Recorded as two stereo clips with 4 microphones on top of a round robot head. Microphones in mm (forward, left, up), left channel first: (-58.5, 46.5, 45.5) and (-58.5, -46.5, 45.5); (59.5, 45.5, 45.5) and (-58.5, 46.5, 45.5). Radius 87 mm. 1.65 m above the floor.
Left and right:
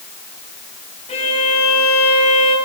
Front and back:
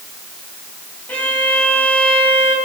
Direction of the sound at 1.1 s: 80° left.